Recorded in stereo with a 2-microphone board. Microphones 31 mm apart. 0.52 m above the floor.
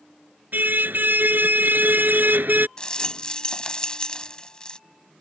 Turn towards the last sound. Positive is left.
turn(degrees=25)  # may be behind; listen again after turning